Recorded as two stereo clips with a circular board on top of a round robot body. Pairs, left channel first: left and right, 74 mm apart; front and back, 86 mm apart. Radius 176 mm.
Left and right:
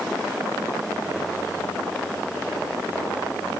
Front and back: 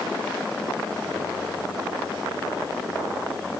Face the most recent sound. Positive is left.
No sound to turn to.